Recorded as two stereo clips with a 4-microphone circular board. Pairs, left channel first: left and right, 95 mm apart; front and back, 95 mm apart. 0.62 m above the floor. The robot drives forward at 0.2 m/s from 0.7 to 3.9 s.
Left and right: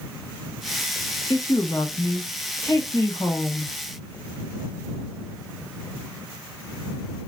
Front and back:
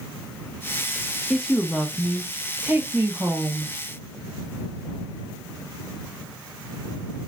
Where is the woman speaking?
80° left, 0.6 m; by 3.7 s 135° left, 0.8 m.